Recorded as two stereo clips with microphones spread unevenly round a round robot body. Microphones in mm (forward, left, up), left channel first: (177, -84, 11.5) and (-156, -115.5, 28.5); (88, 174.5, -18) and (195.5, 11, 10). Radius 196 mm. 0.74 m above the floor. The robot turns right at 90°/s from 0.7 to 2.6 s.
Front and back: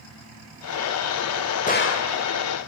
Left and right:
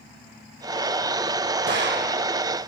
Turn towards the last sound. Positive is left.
turn(degrees=20)